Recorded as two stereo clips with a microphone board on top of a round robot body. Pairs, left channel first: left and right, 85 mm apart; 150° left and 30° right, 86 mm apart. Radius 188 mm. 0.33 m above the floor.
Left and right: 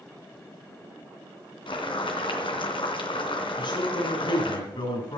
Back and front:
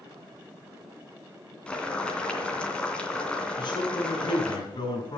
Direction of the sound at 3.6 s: 115° left.